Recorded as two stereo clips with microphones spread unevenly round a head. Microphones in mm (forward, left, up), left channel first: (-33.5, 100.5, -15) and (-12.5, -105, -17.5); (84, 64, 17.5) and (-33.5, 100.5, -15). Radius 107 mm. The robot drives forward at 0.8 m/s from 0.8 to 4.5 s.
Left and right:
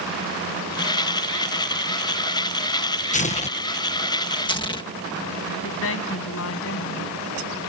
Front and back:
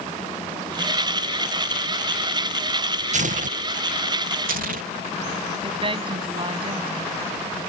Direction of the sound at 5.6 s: 115° left.